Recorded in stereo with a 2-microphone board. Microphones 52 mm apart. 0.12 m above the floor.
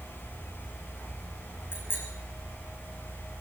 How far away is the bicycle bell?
About 6.5 m.